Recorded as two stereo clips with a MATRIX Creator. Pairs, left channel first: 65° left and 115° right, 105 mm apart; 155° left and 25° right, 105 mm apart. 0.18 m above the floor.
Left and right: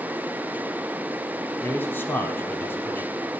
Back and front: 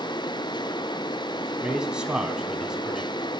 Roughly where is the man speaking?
Ahead left.